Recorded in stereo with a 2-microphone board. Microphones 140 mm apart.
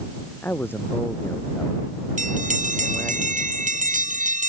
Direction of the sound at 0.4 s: 15° left (ahead or behind).